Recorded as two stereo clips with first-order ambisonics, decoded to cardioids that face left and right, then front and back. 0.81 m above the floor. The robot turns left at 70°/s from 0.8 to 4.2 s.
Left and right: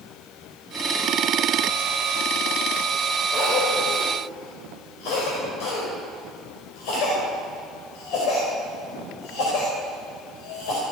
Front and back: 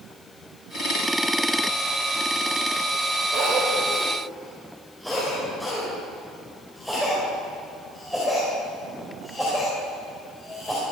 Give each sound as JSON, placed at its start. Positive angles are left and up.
{"t": 3.3, "sound": "a cough", "azimuth_deg": 145, "distance_m": 3.5}